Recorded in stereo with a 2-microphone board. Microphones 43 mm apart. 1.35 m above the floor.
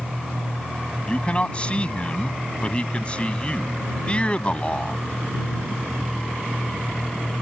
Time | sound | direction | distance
1.1 | a man speaking | 25° left (ahead or behind) | ?